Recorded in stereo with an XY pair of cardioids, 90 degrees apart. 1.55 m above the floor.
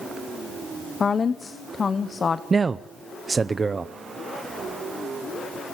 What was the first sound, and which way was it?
A woman speaking, 40° left.